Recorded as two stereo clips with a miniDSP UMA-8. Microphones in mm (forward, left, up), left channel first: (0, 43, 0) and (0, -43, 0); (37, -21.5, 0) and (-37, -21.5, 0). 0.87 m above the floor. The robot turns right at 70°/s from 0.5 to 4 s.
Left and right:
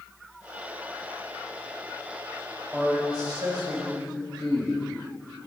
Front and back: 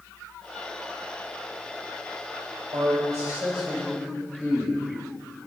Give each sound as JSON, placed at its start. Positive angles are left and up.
{"t": 2.7, "sound": "a man speaking", "azimuth_deg": -165, "distance_m": 3.5}